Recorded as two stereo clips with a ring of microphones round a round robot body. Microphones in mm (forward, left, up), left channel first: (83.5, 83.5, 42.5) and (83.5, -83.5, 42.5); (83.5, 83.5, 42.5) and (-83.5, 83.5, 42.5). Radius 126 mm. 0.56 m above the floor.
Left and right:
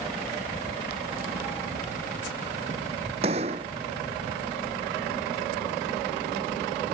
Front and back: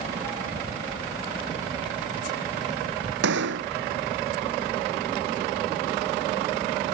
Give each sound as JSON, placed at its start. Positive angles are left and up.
{"t": 3.2, "sound": "a gunshot", "azimuth_deg": -155}